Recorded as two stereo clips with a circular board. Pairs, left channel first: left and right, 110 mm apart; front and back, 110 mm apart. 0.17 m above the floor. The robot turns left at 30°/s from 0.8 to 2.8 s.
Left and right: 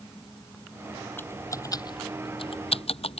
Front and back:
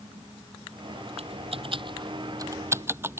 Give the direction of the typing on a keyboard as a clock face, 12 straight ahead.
7 o'clock.